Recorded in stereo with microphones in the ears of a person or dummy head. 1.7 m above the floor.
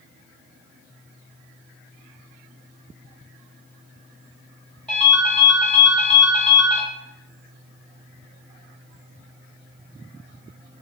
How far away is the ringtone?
About 1.3 m.